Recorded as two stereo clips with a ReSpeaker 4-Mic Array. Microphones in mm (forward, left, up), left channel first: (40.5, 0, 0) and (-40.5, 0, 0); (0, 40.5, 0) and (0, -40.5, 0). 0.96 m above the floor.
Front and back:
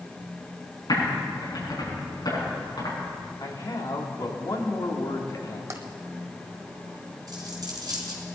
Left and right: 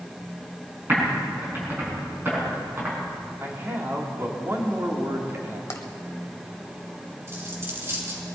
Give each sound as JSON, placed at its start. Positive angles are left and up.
{"t": 0.9, "sound": "typing on a keyboard", "azimuth_deg": -30, "distance_m": 6.0}
{"t": 3.4, "sound": "a man speaking", "azimuth_deg": -30, "distance_m": 2.5}
{"t": 5.7, "sound": "tapping", "azimuth_deg": 135, "distance_m": 1.3}
{"t": 7.3, "sound": "a dropped coin", "azimuth_deg": -145, "distance_m": 4.0}